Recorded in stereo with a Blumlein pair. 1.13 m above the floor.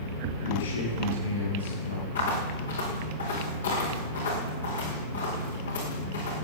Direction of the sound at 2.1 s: 70° left.